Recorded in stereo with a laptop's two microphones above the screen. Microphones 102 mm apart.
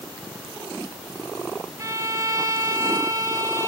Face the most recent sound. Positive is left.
turn(degrees=-30)  # may be behind; listen again after turning